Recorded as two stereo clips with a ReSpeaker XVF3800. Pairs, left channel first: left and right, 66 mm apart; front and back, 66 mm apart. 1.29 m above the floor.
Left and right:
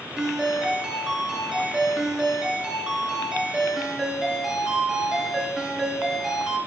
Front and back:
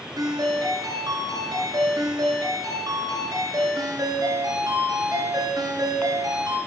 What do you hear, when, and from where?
0.2 s a ringtone: 165° right, 9 m